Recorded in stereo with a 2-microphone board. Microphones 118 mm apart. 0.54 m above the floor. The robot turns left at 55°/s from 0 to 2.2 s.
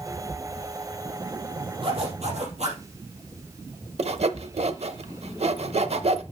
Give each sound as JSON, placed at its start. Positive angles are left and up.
{"t": 1.8, "sound": "a zipper", "side_deg": -45, "distance_m": 4.0}
{"t": 4.0, "sound": "sawing", "side_deg": -60, "distance_m": 0.7}